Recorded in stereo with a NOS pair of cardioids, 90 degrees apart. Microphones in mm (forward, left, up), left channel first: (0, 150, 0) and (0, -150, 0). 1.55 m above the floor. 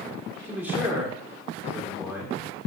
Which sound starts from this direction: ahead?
A man speaking, at 0.4 s.